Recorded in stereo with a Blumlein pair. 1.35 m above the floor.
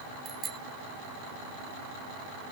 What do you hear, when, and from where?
0.2 s a bicycle bell: 20° right